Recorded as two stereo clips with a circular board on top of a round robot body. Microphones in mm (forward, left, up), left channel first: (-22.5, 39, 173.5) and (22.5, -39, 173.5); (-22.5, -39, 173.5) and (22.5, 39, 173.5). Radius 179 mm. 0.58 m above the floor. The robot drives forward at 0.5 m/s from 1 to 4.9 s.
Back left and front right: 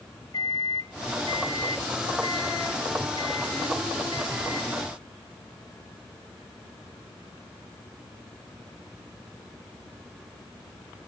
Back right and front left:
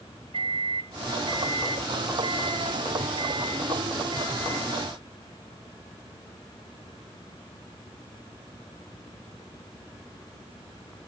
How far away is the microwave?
About 4 m.